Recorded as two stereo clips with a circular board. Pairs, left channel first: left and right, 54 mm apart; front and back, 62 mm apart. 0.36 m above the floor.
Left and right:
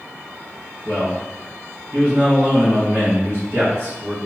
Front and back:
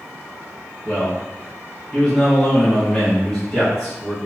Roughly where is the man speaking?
Right.